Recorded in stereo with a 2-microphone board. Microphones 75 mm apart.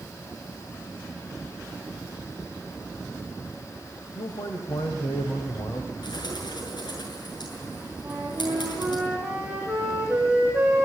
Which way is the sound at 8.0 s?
5° right (ahead or behind).